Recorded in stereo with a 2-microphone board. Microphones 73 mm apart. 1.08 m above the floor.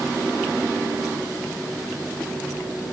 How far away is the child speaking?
I don't hear a child speaking.